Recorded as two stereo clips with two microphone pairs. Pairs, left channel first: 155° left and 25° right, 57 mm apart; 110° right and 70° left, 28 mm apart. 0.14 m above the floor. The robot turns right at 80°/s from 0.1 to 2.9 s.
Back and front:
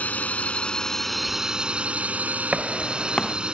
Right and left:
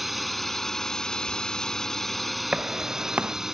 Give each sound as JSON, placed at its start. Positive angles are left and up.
{"t": 0.0, "sound": "a drone", "azimuth_deg": 155}
{"t": 2.5, "sound": "footsteps", "azimuth_deg": 40}